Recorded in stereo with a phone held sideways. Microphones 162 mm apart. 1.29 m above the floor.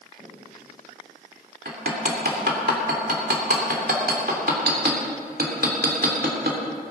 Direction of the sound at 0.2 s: 35° right (ahead or behind).